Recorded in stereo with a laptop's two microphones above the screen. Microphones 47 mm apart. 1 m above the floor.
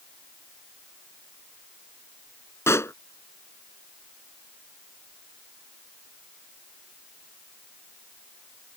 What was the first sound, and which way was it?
A pop, 70° left (ahead or behind).